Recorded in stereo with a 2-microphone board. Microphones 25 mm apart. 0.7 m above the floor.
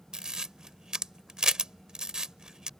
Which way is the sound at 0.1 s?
35° right (ahead or behind).